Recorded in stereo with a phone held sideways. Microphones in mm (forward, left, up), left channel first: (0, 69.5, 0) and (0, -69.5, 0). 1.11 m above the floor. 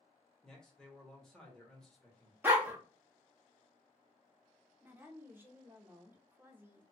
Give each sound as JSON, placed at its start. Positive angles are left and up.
{"t": 0.4, "sound": "a man speaking", "side_deg": 5, "distance_m": 1.1}
{"t": 2.4, "sound": "a dog barking", "side_deg": -15, "distance_m": 0.6}
{"t": 4.8, "sound": "a woman speaking", "side_deg": -15, "distance_m": 0.6}